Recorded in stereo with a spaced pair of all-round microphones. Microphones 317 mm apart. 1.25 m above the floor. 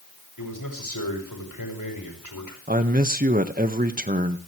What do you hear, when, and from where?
0.4 s a man speaking: 85° left, 7 m
2.7 s a man speaking: 25° right (ahead or behind), 1.6 m